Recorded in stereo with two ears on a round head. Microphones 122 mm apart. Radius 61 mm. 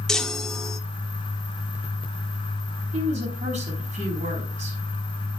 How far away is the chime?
About 0.9 m.